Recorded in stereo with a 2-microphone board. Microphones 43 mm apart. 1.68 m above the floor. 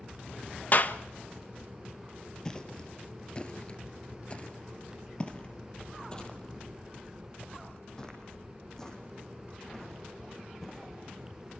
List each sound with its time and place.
0.7 s a clap: 45° left (ahead or behind), 1.2 m
2.5 s footsteps: 15° left (ahead or behind), 2 m; by 11.5 s 10° left (ahead or behind), 8 m